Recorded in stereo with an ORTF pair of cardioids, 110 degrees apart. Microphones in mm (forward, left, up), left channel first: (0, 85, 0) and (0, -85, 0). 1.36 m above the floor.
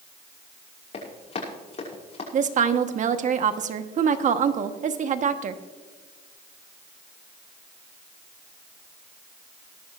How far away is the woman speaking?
About 1.2 m.